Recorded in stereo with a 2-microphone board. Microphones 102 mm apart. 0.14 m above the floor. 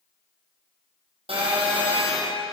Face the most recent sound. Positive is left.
turn(degrees=-70)  # may be behind; listen again after turning